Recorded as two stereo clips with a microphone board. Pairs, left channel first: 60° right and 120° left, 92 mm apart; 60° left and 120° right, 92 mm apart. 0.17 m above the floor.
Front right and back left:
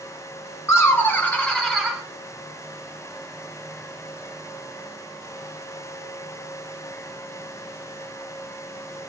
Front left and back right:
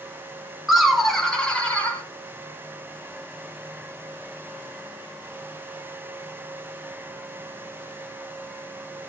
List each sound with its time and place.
0.7 s laughter: 40° right, 1.2 m; by 2.0 s 45° left, 1.1 m